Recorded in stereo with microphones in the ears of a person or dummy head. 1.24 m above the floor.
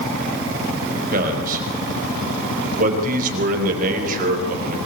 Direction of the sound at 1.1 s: 45° right (ahead or behind).